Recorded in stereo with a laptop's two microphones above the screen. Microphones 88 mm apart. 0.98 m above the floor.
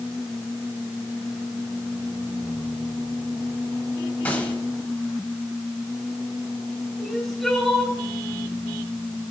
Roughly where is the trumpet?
No trumpet in this recording.